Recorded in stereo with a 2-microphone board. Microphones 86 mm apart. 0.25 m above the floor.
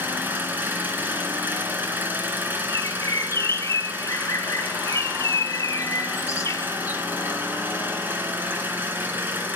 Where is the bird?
35° left (ahead or behind), 0.6 m.